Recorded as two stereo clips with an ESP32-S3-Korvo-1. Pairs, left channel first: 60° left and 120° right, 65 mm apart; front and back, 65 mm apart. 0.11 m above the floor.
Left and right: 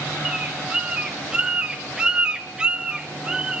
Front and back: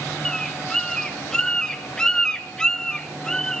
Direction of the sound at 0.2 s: 65° right.